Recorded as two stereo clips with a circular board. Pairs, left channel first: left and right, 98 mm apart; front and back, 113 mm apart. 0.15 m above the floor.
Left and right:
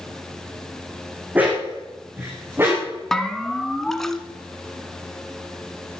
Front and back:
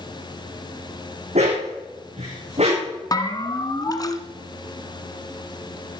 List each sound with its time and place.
1.4 s a dog barking: 165° right, 4.5 m; by 3.0 s 155° right, 7 m
3.1 s a bell: 5° left, 1.1 m